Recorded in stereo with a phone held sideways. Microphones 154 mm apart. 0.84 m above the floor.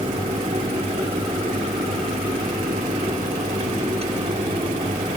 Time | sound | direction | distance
0.0 | a fan | 45° right (ahead or behind) | 1.6 m